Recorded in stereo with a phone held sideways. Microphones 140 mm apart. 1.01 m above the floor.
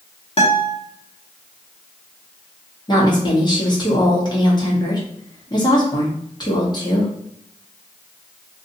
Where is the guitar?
45° left (ahead or behind), 1.1 m.